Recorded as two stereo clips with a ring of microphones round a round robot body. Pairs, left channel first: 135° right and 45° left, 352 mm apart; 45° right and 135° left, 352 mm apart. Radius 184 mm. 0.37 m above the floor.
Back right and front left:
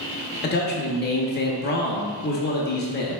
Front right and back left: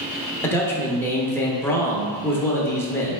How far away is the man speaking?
About 0.8 m.